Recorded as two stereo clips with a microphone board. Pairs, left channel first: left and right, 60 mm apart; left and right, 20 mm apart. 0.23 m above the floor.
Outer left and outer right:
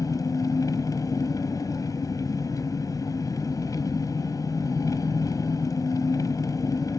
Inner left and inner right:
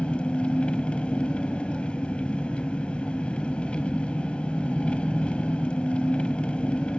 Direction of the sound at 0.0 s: 85° left.